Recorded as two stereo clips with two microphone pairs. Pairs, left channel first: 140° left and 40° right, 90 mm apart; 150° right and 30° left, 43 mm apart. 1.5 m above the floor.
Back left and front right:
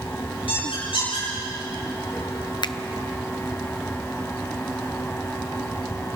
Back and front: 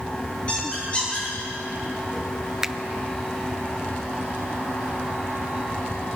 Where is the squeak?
145° left, 9.5 m.